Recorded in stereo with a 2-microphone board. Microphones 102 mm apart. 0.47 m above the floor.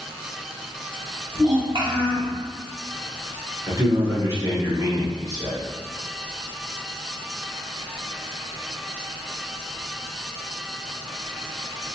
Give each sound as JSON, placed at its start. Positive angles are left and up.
{"t": 1.3, "sound": "a child speaking", "side_deg": -50, "distance_m": 1.6}
{"t": 3.7, "sound": "a man speaking", "side_deg": -25, "distance_m": 1.1}